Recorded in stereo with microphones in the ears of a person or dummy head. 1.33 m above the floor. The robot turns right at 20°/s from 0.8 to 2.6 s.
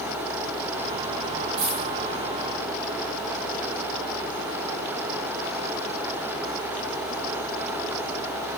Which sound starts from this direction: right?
A dropped coin, at 1.6 s.